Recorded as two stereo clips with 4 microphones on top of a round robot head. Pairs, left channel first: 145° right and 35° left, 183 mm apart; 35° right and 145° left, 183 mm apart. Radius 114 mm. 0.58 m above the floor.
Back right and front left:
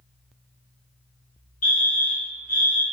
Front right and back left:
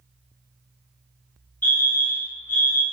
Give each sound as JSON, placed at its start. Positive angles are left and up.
{"t": 1.6, "sound": "a fire alarm", "azimuth_deg": -115, "distance_m": 3.5}